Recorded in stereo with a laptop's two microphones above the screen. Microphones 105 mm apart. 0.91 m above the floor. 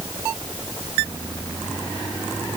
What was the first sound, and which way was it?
Only background noise.